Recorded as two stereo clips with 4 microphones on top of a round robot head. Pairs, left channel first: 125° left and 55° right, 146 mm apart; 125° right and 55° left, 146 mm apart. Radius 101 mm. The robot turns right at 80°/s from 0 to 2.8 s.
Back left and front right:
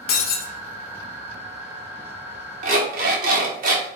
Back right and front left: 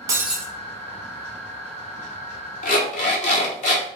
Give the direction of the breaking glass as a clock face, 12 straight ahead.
8 o'clock.